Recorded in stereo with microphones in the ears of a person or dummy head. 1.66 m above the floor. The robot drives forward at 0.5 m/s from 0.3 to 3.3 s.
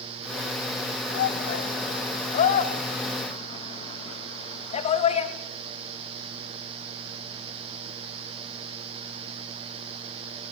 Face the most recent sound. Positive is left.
turn(degrees=45)  # may be behind; listen again after turning